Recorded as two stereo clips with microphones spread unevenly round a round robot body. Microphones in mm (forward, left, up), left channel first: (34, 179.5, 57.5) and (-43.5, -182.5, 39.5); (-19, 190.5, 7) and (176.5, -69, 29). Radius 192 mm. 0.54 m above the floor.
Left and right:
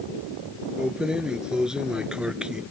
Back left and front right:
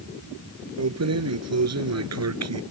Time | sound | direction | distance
0.8 | keys jangling | 15° right | ?